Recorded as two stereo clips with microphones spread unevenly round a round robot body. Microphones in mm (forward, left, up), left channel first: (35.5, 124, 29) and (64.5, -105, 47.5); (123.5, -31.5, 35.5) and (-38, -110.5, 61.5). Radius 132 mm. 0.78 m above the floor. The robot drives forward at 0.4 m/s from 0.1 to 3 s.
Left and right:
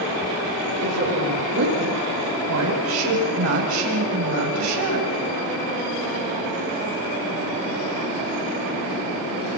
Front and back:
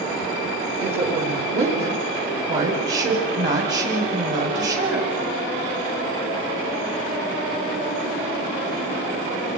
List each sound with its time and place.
0.8 s a woman speaking: 120° right, 5.5 m; by 5.1 s 125° right, 6 m